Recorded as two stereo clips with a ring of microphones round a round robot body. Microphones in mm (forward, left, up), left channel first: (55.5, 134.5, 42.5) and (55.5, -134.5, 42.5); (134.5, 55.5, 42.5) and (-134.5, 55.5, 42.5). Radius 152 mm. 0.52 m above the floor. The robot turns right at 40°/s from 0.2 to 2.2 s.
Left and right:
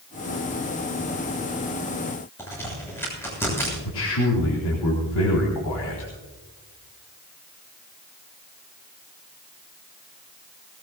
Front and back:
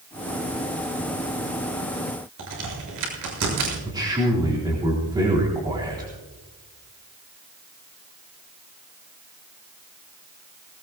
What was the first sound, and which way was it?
A crack, 170° left.